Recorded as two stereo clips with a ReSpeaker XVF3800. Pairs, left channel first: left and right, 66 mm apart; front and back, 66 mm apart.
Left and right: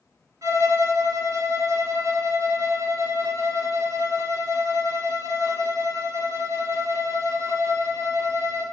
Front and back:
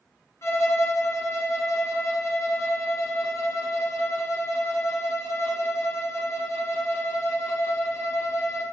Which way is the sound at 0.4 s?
50° right.